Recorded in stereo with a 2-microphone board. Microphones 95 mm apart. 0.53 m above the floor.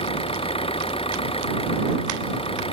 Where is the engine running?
75° left (ahead or behind).